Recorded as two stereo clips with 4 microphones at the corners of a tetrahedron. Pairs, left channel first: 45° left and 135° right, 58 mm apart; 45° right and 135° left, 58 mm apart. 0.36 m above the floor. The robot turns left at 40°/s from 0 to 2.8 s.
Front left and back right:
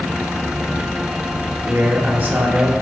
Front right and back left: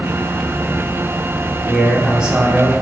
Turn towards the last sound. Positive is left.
turn(degrees=180)